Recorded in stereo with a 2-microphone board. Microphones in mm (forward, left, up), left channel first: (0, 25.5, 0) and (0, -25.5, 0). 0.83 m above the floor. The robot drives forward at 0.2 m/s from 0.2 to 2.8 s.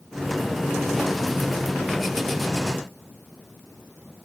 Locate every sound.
Only background noise.